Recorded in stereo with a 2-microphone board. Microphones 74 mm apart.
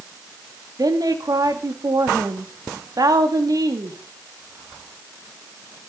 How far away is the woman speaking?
About 3 m.